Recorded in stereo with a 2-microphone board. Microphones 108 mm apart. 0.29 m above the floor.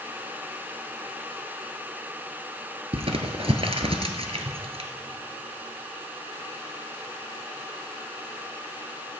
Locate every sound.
2.9 s crumpling: 60° right (ahead or behind), 1.0 m